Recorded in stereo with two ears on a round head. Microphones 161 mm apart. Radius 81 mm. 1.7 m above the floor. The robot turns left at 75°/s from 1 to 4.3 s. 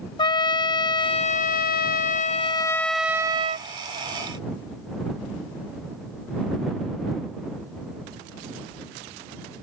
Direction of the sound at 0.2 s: 145° left.